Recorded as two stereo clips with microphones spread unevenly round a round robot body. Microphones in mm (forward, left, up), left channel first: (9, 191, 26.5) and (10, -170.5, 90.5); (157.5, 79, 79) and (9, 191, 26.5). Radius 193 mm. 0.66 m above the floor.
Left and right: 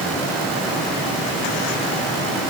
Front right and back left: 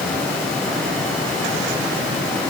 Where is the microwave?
I don't hear a microwave.